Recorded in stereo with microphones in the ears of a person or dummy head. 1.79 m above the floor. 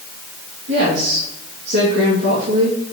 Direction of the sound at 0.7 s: 70° right (ahead or behind).